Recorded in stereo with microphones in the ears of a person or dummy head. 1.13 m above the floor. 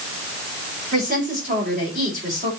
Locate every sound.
0.9 s a woman speaking: 40° right (ahead or behind), 4.5 m